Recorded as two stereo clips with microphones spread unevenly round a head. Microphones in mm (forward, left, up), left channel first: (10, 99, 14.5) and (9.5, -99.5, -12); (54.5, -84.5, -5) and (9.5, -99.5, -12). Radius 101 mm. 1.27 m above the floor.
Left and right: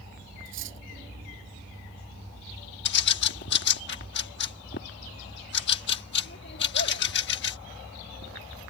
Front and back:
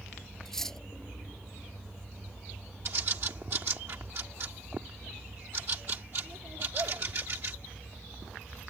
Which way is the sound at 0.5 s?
60° right.